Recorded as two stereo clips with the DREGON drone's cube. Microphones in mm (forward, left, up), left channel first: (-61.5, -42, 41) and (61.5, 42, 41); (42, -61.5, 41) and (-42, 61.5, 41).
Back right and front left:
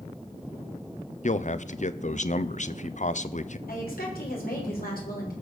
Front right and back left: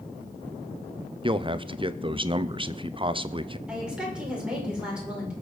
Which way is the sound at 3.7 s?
150° right.